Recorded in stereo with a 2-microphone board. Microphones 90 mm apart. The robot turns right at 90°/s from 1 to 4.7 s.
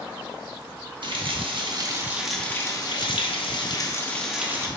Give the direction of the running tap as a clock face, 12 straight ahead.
4 o'clock.